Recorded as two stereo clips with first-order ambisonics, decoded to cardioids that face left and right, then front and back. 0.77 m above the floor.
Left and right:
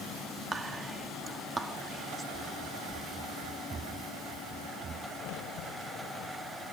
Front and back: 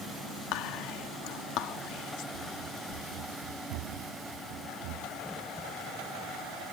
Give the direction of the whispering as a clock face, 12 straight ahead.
1 o'clock.